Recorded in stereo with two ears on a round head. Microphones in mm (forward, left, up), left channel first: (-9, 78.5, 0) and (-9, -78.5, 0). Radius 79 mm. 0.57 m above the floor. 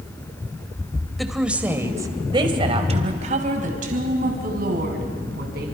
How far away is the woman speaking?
About 2 m.